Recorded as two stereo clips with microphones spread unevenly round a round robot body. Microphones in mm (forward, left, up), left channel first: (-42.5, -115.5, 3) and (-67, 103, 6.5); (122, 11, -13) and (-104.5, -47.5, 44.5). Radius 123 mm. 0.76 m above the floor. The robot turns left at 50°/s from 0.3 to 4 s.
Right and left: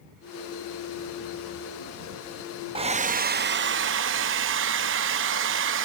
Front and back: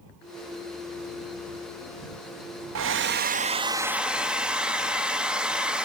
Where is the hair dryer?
160° left; by 5.8 s 95° left.